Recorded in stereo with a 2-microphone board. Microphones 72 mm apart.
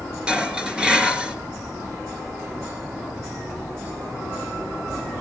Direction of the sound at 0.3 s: 15° right (ahead or behind).